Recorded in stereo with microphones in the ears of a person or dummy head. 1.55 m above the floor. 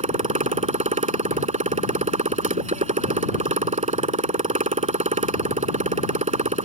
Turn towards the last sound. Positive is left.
turn(degrees=-30)  # may be behind; listen again after turning